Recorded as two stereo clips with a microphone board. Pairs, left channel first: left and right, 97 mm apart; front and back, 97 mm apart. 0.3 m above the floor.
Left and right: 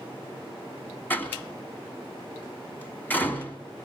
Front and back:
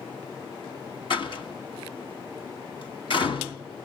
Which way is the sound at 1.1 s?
20° left.